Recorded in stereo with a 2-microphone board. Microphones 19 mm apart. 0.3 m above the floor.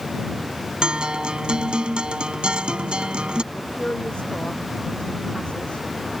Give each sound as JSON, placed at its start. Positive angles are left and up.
{"t": 0.8, "sound": "a guitar", "side_deg": -60}
{"t": 3.5, "sound": "a woman speaking", "side_deg": 75}